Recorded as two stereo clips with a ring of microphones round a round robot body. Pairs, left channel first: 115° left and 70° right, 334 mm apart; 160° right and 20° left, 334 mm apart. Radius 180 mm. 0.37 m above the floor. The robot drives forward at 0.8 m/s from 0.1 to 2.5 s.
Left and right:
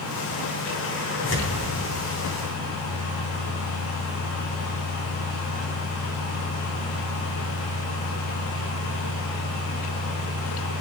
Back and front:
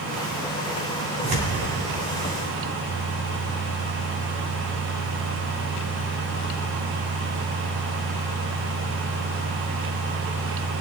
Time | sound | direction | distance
1.2 | tearing paper | 60° left | 3 m